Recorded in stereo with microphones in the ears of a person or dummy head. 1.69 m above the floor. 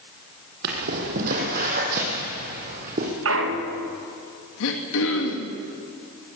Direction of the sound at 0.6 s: 50° right (ahead or behind).